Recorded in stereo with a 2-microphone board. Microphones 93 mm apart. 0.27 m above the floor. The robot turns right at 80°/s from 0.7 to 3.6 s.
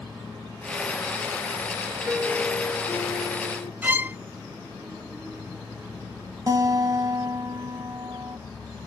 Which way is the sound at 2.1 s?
15° right.